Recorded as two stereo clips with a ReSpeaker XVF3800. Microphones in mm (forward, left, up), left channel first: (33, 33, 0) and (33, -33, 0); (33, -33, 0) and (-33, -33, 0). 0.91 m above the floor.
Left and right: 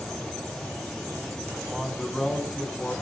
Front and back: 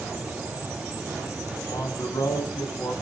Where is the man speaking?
10° right, 6 m; by 2.9 s 5° left, 6.5 m.